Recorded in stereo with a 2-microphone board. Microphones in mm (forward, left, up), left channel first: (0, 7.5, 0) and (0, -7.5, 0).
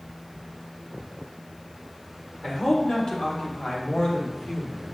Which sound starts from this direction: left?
A man speaking, at 2.4 s.